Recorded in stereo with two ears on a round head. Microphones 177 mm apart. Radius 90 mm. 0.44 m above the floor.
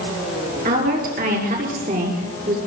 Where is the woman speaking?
45° right (ahead or behind), 8 m; by 2.6 s 40° right (ahead or behind), 6.5 m.